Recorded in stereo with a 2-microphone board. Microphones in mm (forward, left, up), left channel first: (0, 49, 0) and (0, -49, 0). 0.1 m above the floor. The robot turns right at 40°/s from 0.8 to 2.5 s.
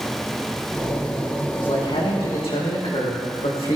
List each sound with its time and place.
1.6 s a man speaking: 55° left, 6 m; by 3.8 s 95° left, 6 m